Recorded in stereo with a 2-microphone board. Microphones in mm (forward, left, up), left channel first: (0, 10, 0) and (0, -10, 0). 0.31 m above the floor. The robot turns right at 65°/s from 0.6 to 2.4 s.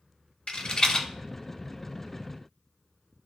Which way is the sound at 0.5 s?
50° left (ahead or behind).